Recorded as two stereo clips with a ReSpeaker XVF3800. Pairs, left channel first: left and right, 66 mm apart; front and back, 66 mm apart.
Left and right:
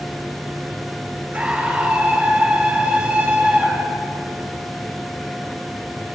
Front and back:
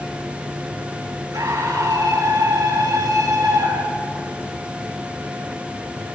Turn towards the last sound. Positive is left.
turn(degrees=-160)